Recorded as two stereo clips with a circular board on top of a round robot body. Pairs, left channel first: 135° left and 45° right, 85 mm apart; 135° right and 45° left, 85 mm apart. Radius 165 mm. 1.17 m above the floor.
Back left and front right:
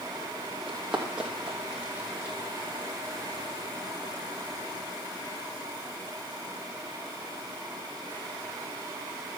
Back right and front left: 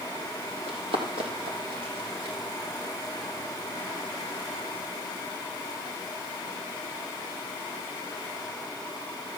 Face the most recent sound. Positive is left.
turn(degrees=30)